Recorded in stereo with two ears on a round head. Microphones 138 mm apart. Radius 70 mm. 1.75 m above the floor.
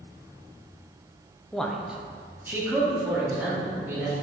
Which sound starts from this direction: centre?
A man speaking, at 1.5 s.